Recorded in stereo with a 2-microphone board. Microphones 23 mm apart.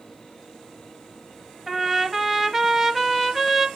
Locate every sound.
1.7 s a trumpet: 5° right (ahead or behind), 0.5 m